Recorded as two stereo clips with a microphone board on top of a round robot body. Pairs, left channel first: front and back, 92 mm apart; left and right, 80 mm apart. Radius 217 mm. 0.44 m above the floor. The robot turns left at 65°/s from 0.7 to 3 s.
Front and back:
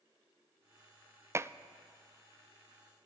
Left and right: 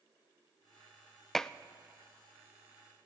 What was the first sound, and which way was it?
Dishes clattering, 170° left.